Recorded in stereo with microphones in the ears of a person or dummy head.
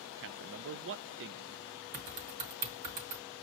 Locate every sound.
0.2 s a man speaking: 55° right (ahead or behind), 0.5 m
1.9 s typing on a keyboard: 55° right (ahead or behind), 2.5 m